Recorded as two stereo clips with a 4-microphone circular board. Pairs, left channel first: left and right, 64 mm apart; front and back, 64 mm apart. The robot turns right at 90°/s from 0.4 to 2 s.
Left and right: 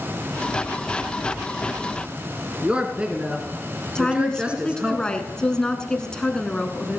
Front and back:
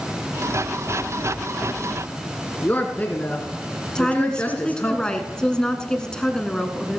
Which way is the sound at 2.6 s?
35° right.